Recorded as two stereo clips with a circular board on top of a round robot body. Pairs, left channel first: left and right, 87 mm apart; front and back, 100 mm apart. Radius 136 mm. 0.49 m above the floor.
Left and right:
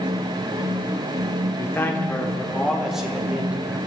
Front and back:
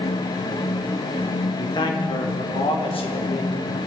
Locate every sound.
1.6 s a man speaking: 35° left, 2 m; by 3.8 s 20° right, 3 m